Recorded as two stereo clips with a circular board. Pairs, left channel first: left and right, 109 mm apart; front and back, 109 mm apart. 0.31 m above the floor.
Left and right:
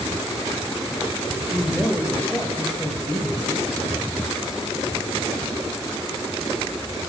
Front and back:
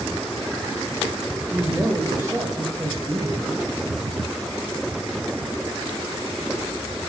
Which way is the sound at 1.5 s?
170° right.